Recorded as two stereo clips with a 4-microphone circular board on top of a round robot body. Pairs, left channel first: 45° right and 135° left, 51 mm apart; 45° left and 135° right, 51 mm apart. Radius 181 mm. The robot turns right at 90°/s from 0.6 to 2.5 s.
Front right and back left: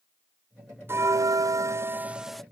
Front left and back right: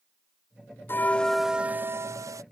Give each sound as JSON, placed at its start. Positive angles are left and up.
{"t": 0.9, "sound": "a bell", "azimuth_deg": 90}